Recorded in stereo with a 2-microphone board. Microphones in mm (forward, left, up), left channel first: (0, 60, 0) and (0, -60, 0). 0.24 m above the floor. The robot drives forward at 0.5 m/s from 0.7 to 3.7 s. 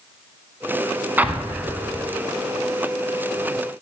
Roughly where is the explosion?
Centre.